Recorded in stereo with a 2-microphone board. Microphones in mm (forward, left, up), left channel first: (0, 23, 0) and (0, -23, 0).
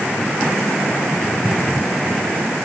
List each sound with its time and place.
Only background noise.